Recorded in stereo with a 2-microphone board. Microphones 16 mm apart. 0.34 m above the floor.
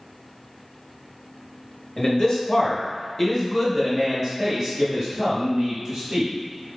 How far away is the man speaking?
About 1.1 m.